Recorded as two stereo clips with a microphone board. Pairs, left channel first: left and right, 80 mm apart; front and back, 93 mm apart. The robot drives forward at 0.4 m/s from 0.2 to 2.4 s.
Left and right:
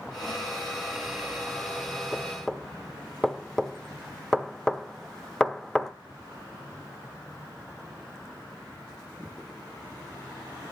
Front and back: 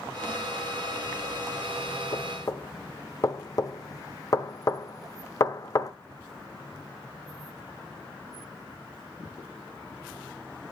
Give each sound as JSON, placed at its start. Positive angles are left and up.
{"t": 2.1, "sound": "knocking", "azimuth_deg": 10, "distance_m": 0.8}